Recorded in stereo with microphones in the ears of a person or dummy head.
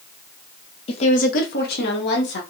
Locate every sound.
0.9 s a woman speaking: 30° left (ahead or behind), 0.8 m; by 2.4 s 60° left (ahead or behind), 1.2 m